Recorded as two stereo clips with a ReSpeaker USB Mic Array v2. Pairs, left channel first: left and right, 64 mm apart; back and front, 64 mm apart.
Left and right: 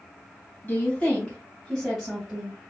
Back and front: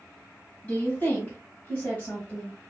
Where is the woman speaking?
135° left, 1.8 m; by 2.6 s 135° right, 1.7 m.